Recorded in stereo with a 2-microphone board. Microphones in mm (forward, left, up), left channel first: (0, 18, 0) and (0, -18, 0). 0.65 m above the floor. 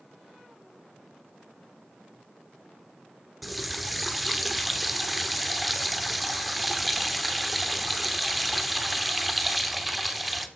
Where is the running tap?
Centre (ahead or behind), 0.9 m.